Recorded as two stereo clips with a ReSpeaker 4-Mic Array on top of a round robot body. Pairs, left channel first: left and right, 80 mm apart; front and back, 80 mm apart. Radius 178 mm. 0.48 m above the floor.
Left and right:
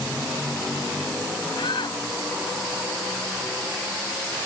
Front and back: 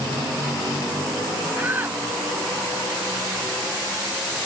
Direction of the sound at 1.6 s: 110° left.